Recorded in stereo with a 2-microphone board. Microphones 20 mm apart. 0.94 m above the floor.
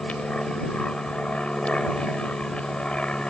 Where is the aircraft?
70° left (ahead or behind).